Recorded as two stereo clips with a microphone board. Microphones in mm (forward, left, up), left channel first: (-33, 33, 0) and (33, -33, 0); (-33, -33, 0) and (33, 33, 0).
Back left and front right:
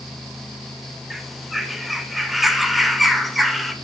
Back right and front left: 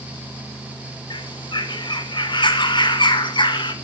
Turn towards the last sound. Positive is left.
turn(degrees=-135)